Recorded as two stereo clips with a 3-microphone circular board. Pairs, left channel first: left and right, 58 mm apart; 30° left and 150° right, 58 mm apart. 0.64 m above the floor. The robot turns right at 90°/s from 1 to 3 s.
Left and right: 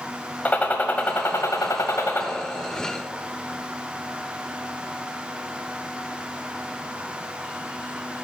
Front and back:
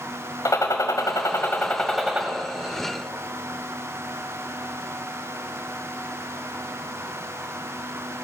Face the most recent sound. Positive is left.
turn(degrees=-150)